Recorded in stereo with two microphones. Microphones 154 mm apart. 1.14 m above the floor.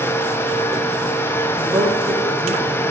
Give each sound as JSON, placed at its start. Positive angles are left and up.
{"t": 1.6, "sound": "a woman speaking", "side_deg": -15, "distance_m": 4.5}